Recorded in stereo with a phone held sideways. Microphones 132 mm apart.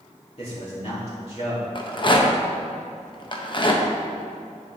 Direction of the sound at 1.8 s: 40° left (ahead or behind).